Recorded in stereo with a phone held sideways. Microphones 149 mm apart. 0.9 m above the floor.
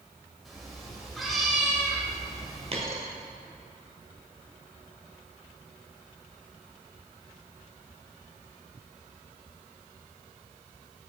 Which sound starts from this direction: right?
A dropped coin, at 2.7 s.